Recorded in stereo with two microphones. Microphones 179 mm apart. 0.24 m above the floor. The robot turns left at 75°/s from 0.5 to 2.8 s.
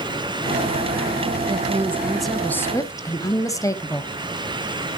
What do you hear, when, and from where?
1.5 s a woman speaking: 20° right (ahead or behind), 1.0 m; by 4.1 s 20° left (ahead or behind), 1.0 m